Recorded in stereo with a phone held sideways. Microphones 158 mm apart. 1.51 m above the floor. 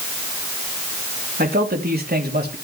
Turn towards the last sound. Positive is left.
turn(degrees=-85)